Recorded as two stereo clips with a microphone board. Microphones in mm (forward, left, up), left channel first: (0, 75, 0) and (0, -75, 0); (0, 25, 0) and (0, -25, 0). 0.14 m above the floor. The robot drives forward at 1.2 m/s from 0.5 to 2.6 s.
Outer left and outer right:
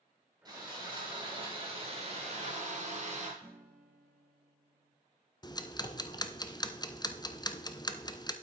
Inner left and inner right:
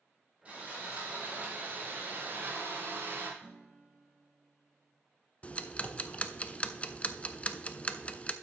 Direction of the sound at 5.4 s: 30° left (ahead or behind).